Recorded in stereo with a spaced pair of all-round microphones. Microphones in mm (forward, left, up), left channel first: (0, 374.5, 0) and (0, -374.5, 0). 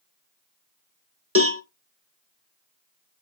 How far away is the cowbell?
About 1.1 m.